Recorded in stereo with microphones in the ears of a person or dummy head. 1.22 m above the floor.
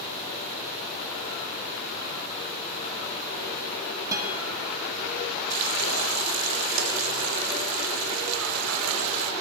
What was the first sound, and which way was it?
A guitar, 15° right (ahead or behind).